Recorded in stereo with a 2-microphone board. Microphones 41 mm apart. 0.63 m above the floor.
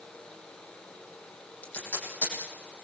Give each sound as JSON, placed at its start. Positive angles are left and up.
{"t": 1.6, "sound": "tape being pulled", "side_deg": 45, "distance_m": 9.0}